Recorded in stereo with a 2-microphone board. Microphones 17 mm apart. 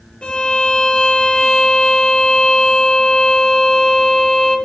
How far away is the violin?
About 3.5 m.